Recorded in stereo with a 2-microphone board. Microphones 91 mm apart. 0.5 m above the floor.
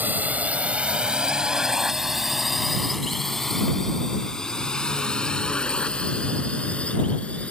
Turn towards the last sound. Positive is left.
turn(degrees=15)  # may be behind; listen again after turning